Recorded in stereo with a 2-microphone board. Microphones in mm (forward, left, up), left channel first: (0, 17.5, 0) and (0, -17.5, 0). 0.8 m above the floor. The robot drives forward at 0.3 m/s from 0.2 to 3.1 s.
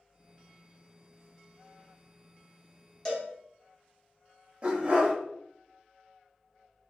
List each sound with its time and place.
3.0 s a cowbell: 10° left (ahead or behind), 0.7 m
4.6 s a dog barking: 30° right (ahead or behind), 0.7 m